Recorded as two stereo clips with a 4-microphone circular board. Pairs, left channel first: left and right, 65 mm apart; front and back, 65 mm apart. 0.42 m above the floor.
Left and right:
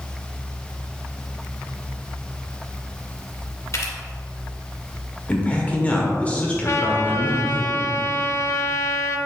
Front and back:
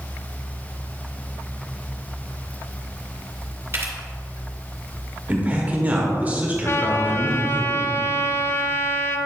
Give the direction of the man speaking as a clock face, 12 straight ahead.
7 o'clock.